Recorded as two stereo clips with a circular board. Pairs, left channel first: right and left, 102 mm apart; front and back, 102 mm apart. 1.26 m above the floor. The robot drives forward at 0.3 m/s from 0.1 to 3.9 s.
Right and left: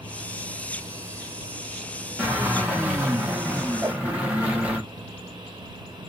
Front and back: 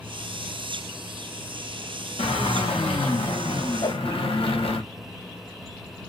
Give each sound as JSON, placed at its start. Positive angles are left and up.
{"t": 2.2, "sound": "a drill", "azimuth_deg": 10, "distance_m": 1.8}
{"t": 3.8, "sound": "a whoosh", "azimuth_deg": 30, "distance_m": 1.9}